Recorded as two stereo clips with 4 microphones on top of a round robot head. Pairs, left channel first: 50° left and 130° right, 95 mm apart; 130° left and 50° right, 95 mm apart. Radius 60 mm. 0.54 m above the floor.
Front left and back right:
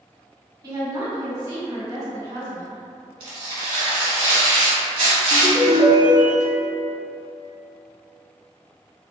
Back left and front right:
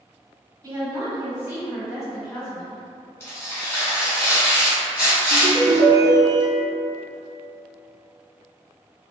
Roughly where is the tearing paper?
Behind.